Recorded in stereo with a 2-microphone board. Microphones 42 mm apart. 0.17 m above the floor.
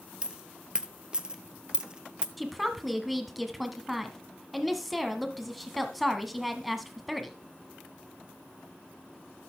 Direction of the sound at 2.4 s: Centre (ahead or behind).